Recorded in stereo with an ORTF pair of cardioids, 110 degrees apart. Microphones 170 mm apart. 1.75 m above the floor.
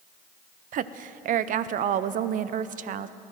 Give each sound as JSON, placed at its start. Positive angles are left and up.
{"t": 0.7, "sound": "a woman speaking", "azimuth_deg": -50, "distance_m": 0.5}